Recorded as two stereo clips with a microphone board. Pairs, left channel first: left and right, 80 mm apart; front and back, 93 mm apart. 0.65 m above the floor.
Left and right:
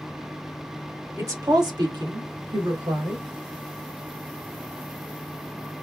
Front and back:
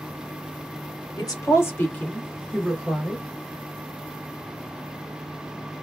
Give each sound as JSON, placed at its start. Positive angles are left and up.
{"t": 1.2, "sound": "a woman speaking", "azimuth_deg": -45, "distance_m": 1.6}